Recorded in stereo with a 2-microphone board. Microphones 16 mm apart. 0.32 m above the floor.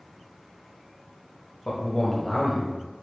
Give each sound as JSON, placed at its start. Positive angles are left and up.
{"t": 1.6, "sound": "a man speaking", "side_deg": 25, "distance_m": 1.1}